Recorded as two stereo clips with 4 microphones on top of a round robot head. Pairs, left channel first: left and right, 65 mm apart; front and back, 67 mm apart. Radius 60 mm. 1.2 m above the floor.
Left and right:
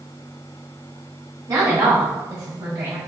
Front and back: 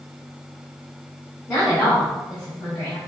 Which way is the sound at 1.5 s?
60° right.